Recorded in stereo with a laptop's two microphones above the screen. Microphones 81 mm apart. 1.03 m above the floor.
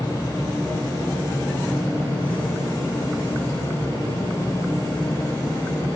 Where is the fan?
45° left (ahead or behind), 3.5 m.